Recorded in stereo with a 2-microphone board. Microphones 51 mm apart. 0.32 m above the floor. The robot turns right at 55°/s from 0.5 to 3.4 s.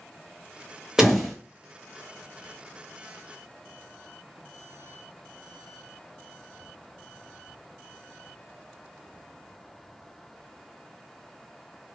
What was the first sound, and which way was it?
A door slam, 10° right (ahead or behind).